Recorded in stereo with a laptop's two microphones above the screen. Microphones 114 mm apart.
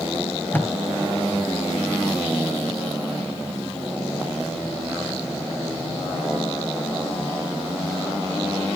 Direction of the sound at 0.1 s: 15° left (ahead or behind).